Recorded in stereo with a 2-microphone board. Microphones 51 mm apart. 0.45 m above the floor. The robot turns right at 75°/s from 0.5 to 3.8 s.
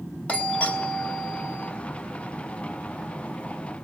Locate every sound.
0.3 s a doorbell: 130° left, 1.8 m; by 1.7 s 140° right, 1.8 m